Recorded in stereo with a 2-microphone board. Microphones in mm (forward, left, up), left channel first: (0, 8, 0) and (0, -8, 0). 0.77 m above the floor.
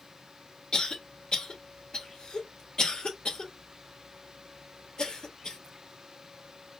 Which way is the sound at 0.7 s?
50° left (ahead or behind).